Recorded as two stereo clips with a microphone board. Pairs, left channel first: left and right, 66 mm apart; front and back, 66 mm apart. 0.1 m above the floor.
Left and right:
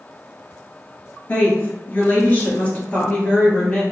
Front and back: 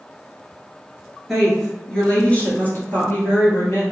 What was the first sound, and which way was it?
A woman speaking, 95° left.